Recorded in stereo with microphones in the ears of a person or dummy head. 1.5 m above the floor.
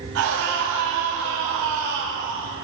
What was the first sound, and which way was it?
A scream, 65° right (ahead or behind).